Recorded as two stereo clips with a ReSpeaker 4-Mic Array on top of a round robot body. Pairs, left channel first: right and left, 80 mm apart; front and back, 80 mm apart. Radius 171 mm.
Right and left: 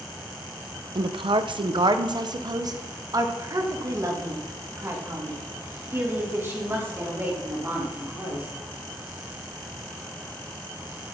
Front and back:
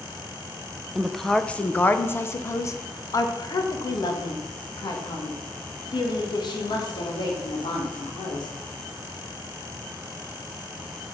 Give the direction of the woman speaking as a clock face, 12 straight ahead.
9 o'clock.